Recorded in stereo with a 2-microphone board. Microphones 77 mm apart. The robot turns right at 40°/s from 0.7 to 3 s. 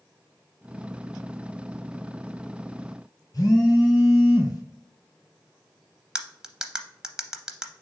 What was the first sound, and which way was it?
A phone buzzing, 50° left (ahead or behind).